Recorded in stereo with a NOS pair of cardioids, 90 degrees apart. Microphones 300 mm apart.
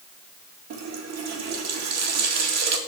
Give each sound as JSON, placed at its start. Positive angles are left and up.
{"t": 0.7, "sound": "a running tap", "azimuth_deg": -65, "distance_m": 1.9}